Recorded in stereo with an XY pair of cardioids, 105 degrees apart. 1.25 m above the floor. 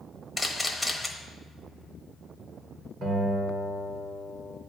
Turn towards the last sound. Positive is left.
turn(degrees=-65)